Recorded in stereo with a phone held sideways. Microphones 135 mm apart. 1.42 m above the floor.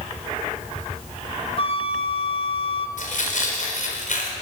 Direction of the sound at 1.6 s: 45° left (ahead or behind).